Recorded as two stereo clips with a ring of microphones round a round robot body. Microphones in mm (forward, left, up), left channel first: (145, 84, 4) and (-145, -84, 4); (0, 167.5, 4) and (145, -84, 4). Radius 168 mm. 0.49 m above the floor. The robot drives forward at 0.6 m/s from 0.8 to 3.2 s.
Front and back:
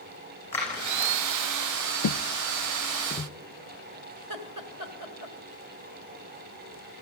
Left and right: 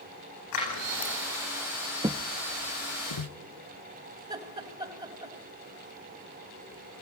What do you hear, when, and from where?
0.5 s scissors: 115° left, 10 m
2.0 s footsteps: 5° left, 0.6 m; by 3.3 s 110° left, 2 m
4.2 s laughter: 130° right, 2.5 m